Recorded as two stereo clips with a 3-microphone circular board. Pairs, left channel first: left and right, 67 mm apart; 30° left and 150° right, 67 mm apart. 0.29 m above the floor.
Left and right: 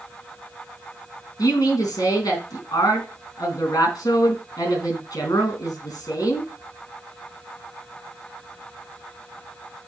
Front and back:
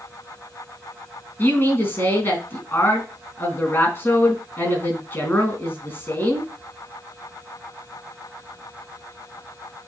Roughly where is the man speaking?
Left.